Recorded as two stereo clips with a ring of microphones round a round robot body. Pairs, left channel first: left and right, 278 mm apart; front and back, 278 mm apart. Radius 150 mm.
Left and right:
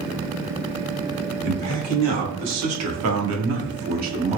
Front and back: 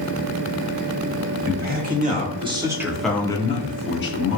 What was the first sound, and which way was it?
A man speaking, 125° right.